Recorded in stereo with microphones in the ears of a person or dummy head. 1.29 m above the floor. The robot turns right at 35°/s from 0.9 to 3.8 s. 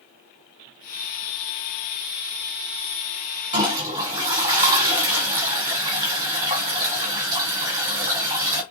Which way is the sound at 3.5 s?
30° right (ahead or behind).